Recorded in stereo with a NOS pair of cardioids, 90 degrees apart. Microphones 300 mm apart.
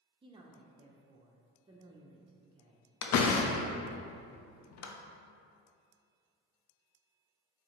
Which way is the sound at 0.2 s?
20° right.